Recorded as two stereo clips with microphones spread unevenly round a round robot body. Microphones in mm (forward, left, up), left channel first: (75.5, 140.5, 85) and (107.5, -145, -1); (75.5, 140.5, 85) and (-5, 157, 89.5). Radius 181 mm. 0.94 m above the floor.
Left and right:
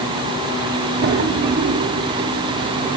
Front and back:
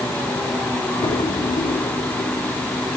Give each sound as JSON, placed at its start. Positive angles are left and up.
{"t": 1.0, "sound": "a drawer", "azimuth_deg": -20, "distance_m": 1.1}